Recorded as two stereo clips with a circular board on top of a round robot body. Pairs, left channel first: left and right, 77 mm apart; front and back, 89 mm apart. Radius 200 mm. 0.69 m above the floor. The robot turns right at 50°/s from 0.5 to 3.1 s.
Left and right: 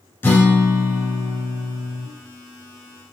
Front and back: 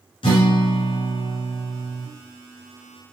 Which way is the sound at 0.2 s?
25° left.